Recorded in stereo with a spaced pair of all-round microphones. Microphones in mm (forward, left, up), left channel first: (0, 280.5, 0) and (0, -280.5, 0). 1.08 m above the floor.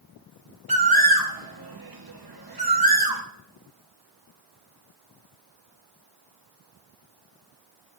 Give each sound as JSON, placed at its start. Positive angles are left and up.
{"t": 0.7, "sound": "a bird", "side_deg": -40, "distance_m": 1.0}